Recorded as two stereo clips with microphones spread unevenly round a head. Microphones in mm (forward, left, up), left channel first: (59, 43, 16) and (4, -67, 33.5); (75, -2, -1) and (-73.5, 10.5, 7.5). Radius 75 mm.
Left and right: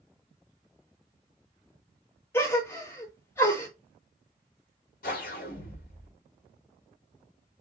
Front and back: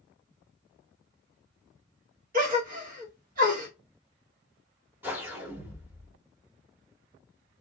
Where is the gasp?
140° left, 1.3 m.